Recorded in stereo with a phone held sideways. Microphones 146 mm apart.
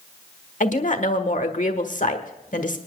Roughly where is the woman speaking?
Left.